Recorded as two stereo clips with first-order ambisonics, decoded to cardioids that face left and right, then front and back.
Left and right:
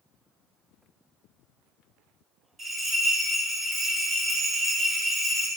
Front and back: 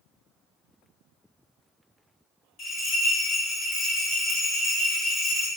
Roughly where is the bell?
Ahead right.